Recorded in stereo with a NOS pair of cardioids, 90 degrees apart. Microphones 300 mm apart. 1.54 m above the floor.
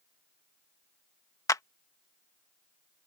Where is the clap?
10° left.